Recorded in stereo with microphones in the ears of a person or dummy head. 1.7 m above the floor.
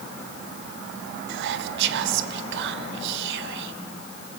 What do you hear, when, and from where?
1.3 s whispering: 65° right (ahead or behind), 1.1 m